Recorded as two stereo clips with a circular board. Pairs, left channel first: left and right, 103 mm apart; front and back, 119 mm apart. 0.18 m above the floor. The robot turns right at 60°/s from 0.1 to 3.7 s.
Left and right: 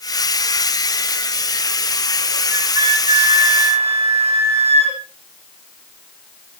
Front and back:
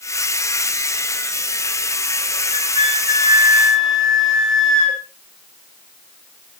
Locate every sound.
2.5 s a flute: 160° right, 9.5 m; by 5.0 s 85° right, 9.5 m